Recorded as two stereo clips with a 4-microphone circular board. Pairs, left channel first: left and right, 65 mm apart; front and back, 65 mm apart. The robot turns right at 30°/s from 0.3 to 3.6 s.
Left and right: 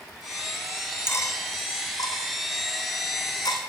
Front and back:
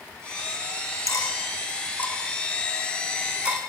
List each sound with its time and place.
1.1 s cutlery clinking: 35° left, 4 m; by 3.6 s 115° left, 4 m